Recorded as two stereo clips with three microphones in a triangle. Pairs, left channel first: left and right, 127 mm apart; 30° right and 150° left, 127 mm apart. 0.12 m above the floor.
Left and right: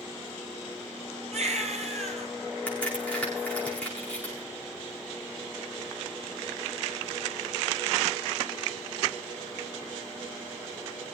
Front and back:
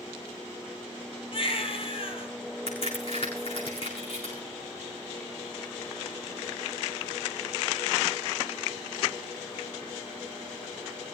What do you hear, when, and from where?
1.3 s a baby crying: 70° right, 2.5 m
2.7 s a crack: 10° left, 7.5 m